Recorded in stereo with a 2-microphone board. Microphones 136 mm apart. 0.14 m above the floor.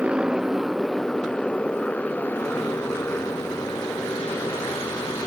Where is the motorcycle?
10° right (ahead or behind); by 5.3 s 20° left (ahead or behind).